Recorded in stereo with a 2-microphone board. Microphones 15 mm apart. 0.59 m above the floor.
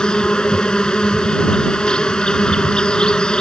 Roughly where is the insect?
Left.